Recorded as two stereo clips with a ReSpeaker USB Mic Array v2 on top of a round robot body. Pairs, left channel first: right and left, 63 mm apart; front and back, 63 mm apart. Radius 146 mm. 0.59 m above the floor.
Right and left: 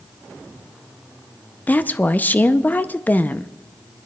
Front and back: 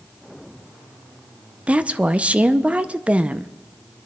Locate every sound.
1.7 s a woman speaking: 125° right, 0.6 m